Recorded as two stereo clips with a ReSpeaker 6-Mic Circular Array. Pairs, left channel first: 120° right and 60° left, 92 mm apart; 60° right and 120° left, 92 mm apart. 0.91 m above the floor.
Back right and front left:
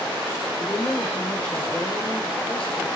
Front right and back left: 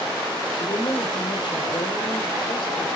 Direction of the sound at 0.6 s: 45° right.